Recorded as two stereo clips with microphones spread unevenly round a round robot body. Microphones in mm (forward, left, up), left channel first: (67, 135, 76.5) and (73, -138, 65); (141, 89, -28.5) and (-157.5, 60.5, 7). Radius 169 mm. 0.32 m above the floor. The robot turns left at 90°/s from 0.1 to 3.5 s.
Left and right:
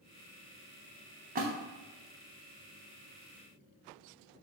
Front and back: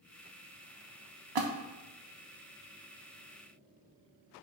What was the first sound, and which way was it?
A splash, 150° right.